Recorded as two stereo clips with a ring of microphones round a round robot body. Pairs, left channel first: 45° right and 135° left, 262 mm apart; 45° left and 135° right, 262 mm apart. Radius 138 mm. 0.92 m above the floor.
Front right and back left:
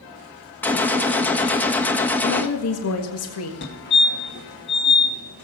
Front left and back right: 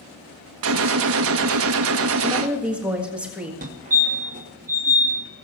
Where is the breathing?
I don't hear breathing.